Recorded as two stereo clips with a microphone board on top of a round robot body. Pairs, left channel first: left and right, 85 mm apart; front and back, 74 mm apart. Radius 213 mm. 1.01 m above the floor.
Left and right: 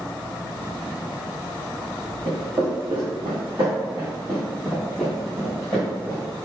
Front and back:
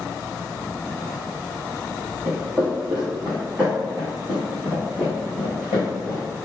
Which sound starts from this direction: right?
Footsteps, at 2.2 s.